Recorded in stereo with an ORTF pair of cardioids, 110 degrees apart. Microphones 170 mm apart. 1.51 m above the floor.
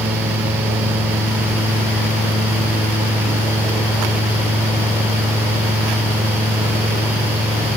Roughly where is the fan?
Ahead.